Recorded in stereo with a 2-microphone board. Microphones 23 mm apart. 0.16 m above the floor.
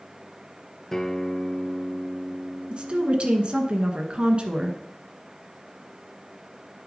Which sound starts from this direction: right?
A woman speaking, at 2.7 s.